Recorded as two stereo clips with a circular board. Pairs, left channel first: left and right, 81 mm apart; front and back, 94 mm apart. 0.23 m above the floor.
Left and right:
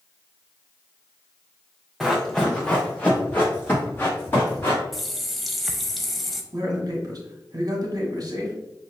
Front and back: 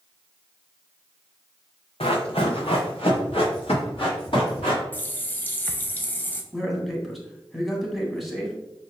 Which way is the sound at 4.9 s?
5° left.